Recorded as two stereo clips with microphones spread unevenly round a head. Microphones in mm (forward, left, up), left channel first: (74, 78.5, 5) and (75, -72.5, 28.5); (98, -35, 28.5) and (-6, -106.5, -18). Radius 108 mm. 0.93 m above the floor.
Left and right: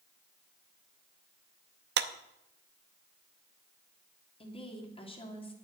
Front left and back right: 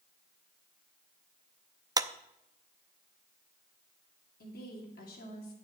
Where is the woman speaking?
40° left, 2.5 m.